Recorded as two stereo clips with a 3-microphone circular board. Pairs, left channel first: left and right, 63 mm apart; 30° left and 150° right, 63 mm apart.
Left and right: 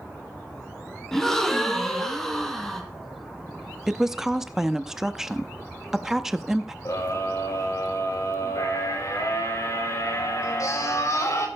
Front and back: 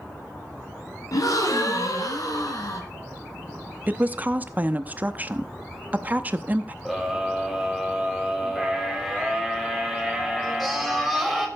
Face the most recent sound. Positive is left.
turn(degrees=115)